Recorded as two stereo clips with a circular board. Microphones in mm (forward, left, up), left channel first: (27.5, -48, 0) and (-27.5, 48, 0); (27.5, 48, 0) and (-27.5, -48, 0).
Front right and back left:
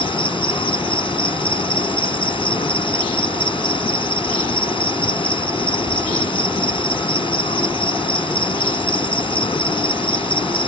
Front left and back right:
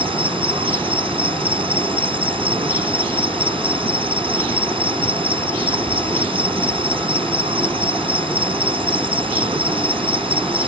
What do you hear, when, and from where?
0.0 s an insect: 90° right